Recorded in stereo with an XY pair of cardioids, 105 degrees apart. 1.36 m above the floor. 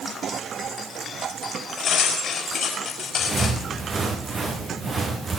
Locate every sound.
1.8 s cutlery clinking: 55° left, 5.5 m
3.2 s footsteps: 30° right, 5 m